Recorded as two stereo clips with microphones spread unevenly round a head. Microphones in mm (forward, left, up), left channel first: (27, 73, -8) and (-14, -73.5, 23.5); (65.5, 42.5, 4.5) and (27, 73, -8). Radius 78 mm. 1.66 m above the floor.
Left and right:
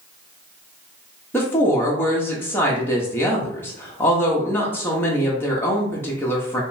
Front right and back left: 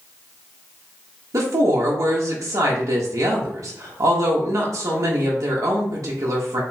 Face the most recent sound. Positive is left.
turn(degrees=150)